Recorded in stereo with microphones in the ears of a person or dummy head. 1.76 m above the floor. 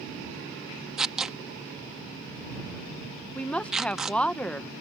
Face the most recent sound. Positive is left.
turn(degrees=5)  # may be behind; listen again after turning